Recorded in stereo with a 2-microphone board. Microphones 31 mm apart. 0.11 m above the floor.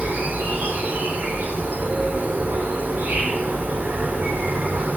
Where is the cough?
I don't hear a cough.